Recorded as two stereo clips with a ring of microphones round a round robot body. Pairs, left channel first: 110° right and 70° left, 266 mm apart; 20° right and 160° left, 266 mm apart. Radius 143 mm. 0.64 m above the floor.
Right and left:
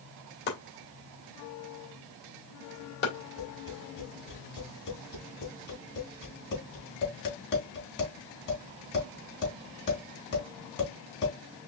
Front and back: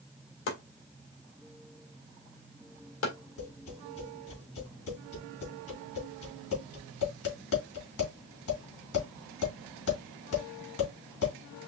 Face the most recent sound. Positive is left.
turn(degrees=-60)